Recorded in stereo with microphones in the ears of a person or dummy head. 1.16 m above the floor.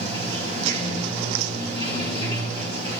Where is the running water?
35° right (ahead or behind), 5 m.